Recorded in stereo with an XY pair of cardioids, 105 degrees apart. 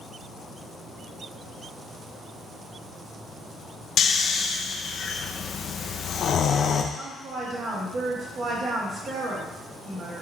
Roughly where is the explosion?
I don't hear an explosion.